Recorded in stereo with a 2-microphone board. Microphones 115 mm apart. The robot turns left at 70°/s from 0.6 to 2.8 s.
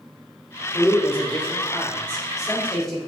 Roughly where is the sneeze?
I don't hear a sneeze.